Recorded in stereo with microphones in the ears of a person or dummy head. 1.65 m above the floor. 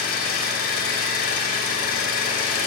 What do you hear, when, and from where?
0.0 s an engine running: 50° left (ahead or behind), 4.5 m